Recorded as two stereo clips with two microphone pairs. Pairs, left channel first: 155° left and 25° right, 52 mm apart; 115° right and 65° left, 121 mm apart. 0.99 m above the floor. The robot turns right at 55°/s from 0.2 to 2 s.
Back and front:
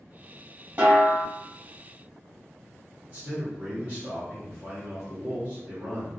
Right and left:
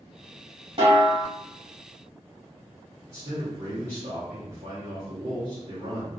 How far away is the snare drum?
About 1.1 m.